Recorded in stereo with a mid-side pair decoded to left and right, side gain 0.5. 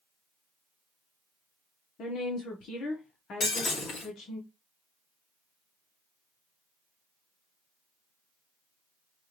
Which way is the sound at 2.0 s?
60° left.